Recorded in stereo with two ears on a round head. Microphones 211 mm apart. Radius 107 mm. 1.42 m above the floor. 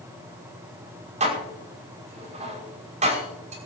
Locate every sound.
1.2 s dishes clattering: 30° right (ahead or behind), 5.5 m